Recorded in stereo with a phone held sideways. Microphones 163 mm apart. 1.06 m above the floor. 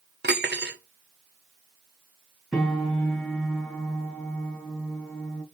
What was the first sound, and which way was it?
Cutlery clinking, 75° right (ahead or behind).